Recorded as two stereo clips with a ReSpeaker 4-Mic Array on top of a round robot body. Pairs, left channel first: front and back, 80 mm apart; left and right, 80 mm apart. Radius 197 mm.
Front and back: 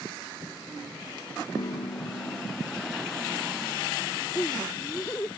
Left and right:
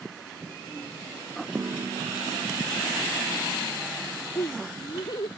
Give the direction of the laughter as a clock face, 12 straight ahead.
10 o'clock.